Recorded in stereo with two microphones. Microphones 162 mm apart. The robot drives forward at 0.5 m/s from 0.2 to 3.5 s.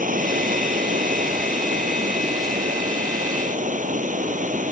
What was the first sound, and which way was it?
Running water, 50° right (ahead or behind).